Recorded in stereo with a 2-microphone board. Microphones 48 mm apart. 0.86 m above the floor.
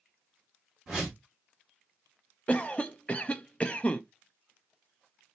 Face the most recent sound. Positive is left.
turn(degrees=25)  # may be behind; listen again after turning